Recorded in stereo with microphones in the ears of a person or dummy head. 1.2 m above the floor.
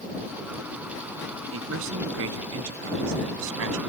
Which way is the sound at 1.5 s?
80° right.